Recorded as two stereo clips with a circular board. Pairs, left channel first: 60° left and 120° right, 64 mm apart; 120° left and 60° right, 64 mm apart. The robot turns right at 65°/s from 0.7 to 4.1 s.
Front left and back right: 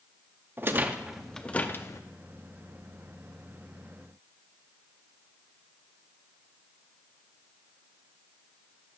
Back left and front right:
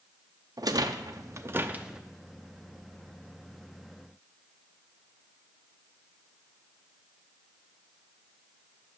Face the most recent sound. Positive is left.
turn(degrees=155)